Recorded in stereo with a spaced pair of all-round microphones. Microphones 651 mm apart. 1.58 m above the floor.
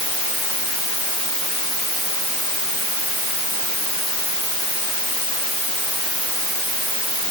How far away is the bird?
No bird in this recording.